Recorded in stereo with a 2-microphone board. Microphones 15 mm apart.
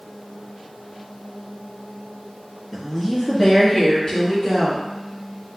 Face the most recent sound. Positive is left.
turn(degrees=40)  # may be behind; listen again after turning